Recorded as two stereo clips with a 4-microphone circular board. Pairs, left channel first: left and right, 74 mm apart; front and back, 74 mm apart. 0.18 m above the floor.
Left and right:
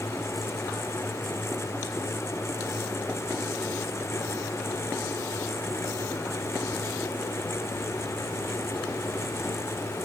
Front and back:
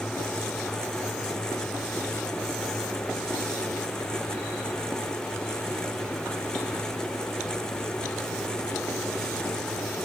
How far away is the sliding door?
No sliding door in this recording.